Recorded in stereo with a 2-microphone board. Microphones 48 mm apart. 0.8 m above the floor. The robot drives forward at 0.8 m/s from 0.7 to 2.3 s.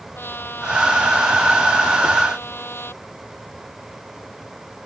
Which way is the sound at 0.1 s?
45° left (ahead or behind).